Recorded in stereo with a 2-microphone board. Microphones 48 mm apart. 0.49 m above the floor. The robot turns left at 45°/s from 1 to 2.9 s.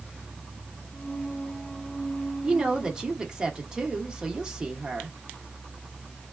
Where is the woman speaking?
25° right (ahead or behind), 0.8 m; by 5.2 s 20° right (ahead or behind), 0.8 m.